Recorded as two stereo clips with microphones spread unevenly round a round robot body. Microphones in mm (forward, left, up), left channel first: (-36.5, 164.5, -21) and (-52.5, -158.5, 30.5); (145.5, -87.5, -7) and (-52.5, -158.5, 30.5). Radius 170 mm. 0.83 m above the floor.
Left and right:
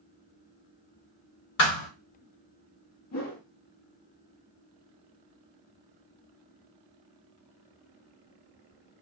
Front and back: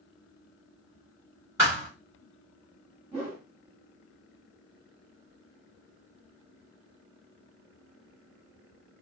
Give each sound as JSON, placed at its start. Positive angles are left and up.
{"t": 1.6, "sound": "a thud", "azimuth_deg": 125, "distance_m": 1.0}
{"t": 3.1, "sound": "a whoosh", "azimuth_deg": 115, "distance_m": 1.0}